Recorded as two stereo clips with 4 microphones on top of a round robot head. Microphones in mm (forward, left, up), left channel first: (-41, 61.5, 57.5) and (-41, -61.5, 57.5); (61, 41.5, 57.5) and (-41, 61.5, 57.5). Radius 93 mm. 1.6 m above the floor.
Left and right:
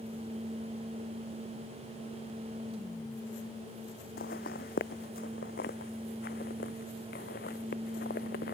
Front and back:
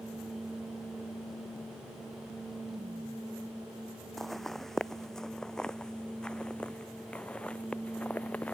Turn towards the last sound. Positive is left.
turn(degrees=65)